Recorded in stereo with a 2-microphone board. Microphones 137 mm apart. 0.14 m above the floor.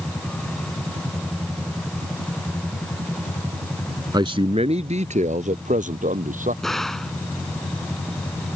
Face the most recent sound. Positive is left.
turn(degrees=5)  # may be behind; listen again after turning